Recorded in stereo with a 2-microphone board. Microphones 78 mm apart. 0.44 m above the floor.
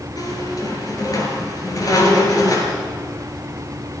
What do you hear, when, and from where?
0.2 s a squeak: 50° left (ahead or behind), 5.5 m